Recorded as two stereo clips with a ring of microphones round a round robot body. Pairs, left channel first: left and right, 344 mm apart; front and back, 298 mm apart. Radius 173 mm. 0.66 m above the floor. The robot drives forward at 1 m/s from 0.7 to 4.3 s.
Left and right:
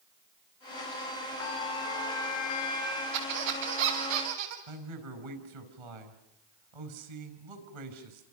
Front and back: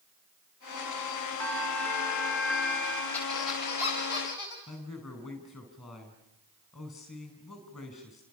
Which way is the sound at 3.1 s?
85° right.